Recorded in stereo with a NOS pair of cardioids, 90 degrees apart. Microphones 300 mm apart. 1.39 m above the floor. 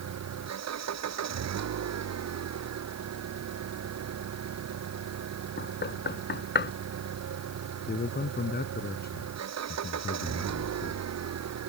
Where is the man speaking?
30° left.